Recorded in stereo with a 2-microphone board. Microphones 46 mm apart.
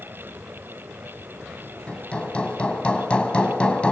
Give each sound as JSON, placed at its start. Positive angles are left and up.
{"t": 1.9, "sound": "hammering", "side_deg": 25, "distance_m": 2.5}